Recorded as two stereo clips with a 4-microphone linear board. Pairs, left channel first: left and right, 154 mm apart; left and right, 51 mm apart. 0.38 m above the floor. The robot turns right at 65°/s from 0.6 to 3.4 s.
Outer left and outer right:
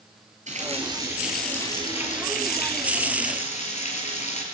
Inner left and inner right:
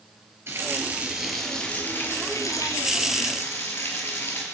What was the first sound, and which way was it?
A running tap, 50° right.